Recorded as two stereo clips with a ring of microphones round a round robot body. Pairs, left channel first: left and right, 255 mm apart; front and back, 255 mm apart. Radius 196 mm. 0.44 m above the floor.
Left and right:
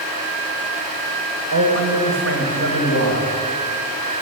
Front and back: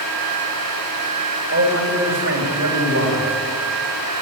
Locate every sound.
1.5 s a man speaking: 130° right, 3 m; by 3.3 s 135° right, 4 m